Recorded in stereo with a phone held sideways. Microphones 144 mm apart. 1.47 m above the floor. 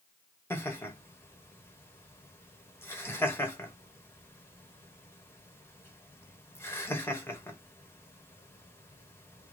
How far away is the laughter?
About 1.5 m.